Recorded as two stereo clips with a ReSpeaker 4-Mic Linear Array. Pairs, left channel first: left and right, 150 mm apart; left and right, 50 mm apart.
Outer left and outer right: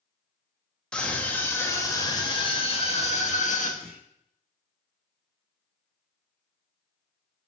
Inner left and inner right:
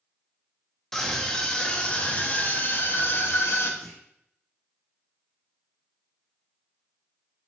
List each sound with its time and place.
0.9 s a scream: 5° left (ahead or behind), 2.5 m; by 3.7 s 60° left (ahead or behind), 2 m
3.8 s a clunk: 5° left (ahead or behind), 4 m